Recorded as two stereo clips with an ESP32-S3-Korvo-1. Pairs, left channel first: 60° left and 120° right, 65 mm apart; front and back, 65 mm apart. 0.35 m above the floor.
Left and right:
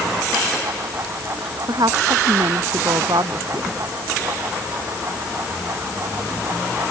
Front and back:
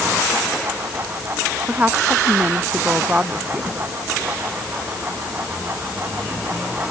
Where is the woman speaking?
115° right.